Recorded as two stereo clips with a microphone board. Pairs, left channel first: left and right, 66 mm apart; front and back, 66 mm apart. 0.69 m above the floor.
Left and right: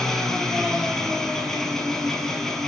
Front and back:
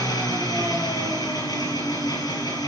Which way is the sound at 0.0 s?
5° left.